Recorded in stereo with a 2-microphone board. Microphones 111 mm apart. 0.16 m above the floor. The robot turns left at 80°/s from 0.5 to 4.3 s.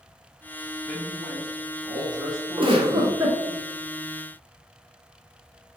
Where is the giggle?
100° right, 1.2 m; by 3.4 s 165° right, 1.2 m.